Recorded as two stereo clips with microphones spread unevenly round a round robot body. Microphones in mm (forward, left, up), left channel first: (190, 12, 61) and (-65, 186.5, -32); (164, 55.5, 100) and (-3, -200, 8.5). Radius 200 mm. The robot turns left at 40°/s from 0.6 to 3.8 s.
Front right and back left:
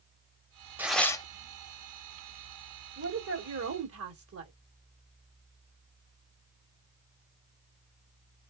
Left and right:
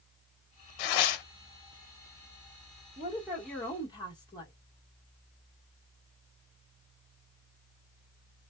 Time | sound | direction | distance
0.8 | tearing paper | 65° left | 0.7 m
3.0 | a woman speaking | 175° left | 1.3 m